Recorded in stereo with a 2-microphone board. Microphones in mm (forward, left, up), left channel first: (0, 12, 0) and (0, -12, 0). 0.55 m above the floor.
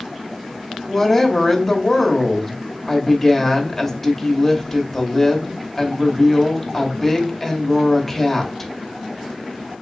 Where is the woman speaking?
10° left (ahead or behind), 0.9 m.